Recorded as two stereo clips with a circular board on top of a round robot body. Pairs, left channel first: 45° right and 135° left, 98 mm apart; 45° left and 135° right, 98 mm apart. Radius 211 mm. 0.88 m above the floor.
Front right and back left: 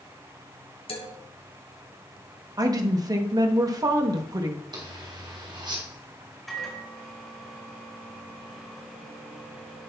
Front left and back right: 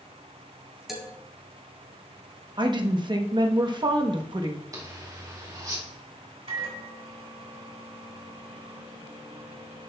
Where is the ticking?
I don't hear ticking.